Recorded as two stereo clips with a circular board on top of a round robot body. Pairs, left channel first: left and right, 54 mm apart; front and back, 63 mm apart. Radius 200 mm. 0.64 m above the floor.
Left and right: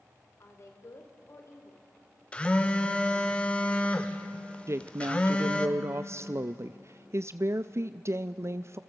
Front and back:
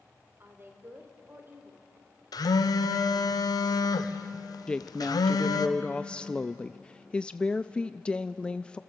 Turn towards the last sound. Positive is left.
turn(degrees=-75)